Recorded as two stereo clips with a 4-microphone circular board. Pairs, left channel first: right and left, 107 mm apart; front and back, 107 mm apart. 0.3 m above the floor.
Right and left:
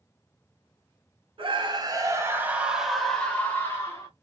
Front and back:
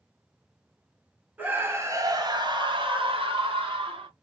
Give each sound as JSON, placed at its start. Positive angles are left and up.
{"t": 1.4, "sound": "a scream", "azimuth_deg": 110, "distance_m": 1.7}